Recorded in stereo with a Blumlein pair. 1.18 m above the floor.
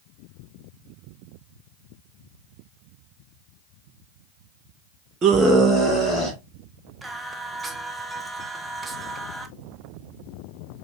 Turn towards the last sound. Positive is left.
turn(degrees=-10)